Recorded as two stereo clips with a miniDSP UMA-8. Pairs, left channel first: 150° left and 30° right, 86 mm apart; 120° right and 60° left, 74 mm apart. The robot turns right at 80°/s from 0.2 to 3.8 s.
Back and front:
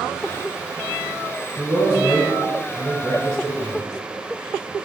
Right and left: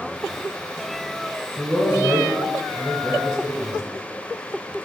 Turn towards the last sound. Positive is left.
turn(degrees=-95)